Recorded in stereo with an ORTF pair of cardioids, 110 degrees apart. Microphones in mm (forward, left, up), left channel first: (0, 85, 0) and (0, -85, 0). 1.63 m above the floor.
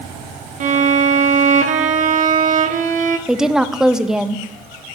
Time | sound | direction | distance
0.6 | a violin | 50° right | 1.0 m
3.3 | a woman speaking | 5° right | 0.6 m